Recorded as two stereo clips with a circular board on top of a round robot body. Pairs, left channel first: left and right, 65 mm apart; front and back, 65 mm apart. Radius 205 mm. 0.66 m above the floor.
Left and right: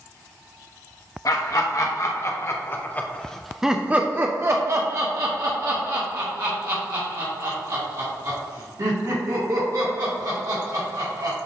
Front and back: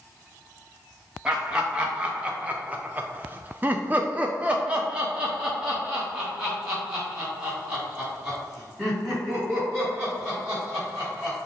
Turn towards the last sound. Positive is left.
turn(degrees=-95)